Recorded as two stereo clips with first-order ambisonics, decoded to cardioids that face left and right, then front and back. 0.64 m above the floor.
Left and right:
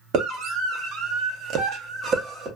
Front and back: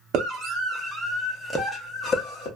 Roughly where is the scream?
Behind right.